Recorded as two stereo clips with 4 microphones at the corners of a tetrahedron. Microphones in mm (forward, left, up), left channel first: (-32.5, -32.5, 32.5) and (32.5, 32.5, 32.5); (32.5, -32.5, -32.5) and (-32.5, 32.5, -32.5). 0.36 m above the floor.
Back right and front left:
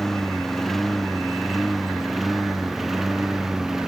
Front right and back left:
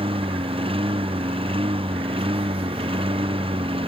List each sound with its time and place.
0.0 s a lawn mower: 140° left; by 3.9 s 130° left